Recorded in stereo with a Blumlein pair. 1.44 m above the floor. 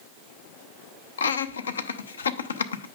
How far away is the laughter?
About 0.6 m.